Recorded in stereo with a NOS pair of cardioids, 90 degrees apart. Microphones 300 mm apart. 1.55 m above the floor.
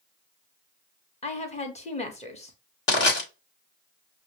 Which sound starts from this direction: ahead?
A woman speaking, at 1.2 s.